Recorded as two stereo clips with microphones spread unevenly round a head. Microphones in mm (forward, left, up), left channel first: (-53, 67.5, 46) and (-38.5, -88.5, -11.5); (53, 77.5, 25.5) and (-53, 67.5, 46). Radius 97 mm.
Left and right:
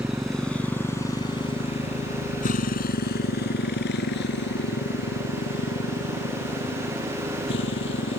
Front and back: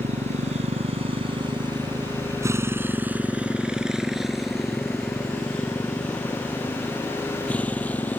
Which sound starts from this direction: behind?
A motorcycle, at 0.0 s.